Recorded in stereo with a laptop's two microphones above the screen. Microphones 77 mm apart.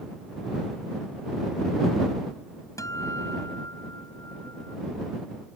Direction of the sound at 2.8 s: 45° left (ahead or behind).